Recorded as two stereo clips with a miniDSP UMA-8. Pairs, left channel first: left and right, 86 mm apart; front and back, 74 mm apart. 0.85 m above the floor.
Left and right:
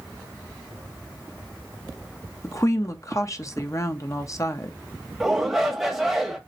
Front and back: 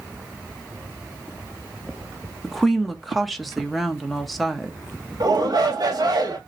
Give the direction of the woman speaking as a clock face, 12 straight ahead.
9 o'clock.